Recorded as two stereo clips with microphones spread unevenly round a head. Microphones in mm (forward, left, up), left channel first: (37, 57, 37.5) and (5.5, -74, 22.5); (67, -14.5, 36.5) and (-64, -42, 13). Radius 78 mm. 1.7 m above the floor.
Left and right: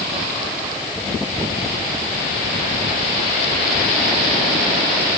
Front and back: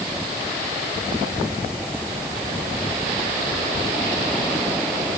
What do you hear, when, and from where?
Only background noise.